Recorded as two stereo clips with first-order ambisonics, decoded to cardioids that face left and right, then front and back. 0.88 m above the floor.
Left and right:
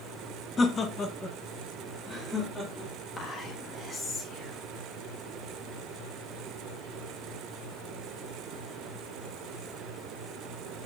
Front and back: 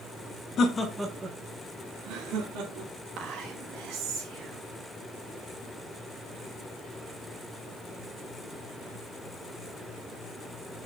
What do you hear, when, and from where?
0.6 s laughter: 25° left, 1.1 m; by 2.9 s 170° left, 3 m
3.2 s whispering: 160° left, 1.5 m